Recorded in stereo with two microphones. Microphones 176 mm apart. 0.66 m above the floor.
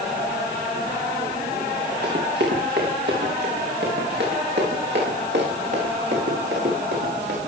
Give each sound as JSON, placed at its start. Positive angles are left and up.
{"t": 2.0, "sound": "running footsteps", "side_deg": -75, "distance_m": 5.5}